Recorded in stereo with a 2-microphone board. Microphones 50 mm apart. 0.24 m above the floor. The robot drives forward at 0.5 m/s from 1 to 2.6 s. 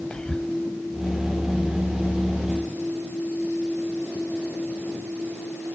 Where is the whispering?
20° left (ahead or behind), 1.1 m.